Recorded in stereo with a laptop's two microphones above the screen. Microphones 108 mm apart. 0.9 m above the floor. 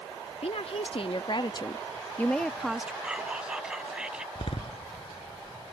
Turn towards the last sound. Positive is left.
turn(degrees=60)  # may be behind; listen again after turning